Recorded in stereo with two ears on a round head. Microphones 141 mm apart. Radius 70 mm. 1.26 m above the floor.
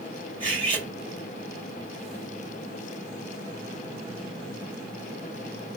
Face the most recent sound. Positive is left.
turn(degrees=-35)  # may be behind; listen again after turning